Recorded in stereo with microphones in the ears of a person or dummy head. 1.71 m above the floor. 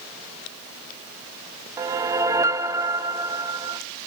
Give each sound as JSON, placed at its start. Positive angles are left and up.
{"t": 1.8, "sound": "a whoosh", "side_deg": -15, "distance_m": 0.8}